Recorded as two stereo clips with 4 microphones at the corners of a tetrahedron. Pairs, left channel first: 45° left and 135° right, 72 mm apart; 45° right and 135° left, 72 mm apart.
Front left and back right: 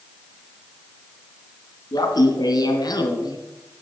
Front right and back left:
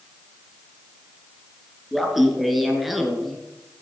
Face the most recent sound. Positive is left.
turn(degrees=45)